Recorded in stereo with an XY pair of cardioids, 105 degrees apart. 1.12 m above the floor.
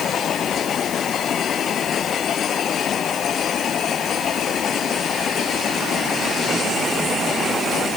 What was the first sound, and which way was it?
Only background noise.